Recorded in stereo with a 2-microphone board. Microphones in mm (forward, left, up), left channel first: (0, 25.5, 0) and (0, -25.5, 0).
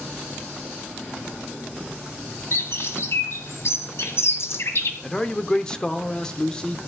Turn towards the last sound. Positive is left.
turn(degrees=20)  # may be behind; listen again after turning